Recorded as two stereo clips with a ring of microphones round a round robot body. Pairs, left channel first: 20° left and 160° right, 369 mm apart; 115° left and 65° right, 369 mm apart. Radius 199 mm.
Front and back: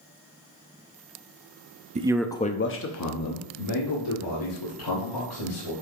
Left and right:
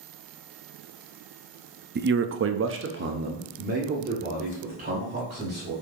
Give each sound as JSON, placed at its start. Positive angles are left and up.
{"t": 1.9, "sound": "a man speaking", "azimuth_deg": -105, "distance_m": 0.7}